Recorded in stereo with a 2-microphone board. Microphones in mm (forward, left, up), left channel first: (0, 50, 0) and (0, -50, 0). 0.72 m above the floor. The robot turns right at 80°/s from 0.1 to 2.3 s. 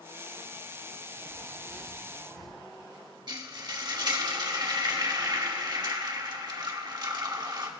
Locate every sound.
1.3 s tearing paper: 40° right, 7.5 m; by 2.5 s 40° left, 7.5 m
3.3 s frying: 50° right (ahead or behind), 1.7 m